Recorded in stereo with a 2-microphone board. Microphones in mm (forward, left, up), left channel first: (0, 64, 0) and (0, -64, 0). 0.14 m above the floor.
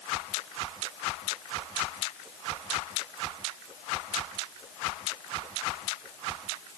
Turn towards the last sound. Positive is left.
No sound to turn to.